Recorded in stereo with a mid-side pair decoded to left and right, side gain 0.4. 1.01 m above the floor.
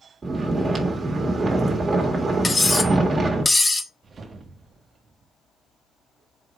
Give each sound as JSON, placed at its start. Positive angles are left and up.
{"t": 0.2, "sound": "snoring", "azimuth_deg": -40, "distance_m": 1.6}
{"t": 2.4, "sound": "cutlery clinking", "azimuth_deg": 20, "distance_m": 0.7}
{"t": 4.0, "sound": "a whoosh", "azimuth_deg": -50, "distance_m": 1.1}